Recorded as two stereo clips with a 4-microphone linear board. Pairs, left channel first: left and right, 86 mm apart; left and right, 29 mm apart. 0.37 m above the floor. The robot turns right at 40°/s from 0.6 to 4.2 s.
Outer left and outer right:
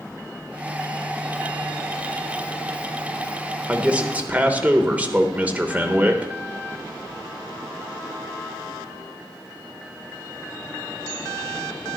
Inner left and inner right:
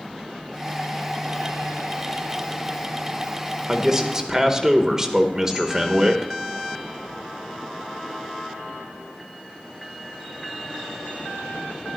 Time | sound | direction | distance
3.7 | a man speaking | 15° right (ahead or behind) | 1.0 m